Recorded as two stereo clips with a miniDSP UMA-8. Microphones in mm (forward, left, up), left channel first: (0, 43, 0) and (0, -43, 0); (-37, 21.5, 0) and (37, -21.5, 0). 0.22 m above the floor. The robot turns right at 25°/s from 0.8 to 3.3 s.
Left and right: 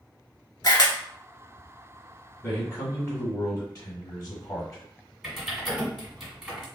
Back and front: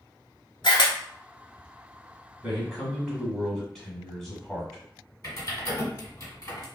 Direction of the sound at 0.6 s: 130° left.